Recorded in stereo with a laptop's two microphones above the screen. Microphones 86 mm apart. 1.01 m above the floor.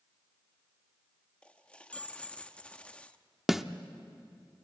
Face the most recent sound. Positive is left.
turn(degrees=-5)  # may be behind; listen again after turning